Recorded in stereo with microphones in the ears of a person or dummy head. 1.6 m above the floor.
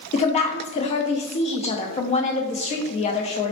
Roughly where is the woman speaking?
Left.